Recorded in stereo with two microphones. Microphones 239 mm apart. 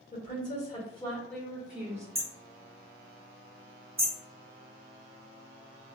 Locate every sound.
0.1 s a woman speaking: 40° left (ahead or behind), 1.7 m; by 2.0 s 15° right (ahead or behind), 1.4 m
2.1 s hammering: 60° right (ahead or behind), 1.0 m